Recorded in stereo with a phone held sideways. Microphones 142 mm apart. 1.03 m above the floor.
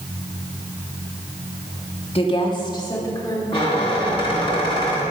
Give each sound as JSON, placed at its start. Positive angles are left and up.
{"t": 2.1, "sound": "a woman speaking", "side_deg": 40, "distance_m": 1.7}
{"t": 3.5, "sound": "a squeak", "side_deg": 35, "distance_m": 4.0}